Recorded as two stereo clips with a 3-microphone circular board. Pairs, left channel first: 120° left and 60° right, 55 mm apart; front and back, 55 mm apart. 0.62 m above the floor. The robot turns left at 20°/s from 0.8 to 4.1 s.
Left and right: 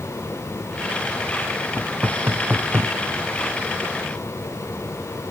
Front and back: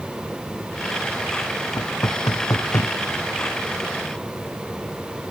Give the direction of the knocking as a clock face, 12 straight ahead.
12 o'clock.